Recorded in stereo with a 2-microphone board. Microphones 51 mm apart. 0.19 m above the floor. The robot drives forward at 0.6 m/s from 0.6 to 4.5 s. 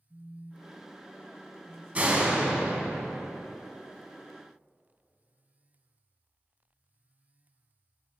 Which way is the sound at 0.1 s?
10° right (ahead or behind).